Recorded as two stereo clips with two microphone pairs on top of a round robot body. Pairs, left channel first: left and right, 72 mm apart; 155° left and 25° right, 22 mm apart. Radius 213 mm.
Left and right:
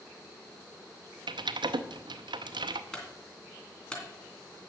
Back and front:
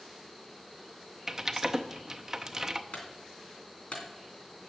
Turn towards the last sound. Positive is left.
turn(degrees=165)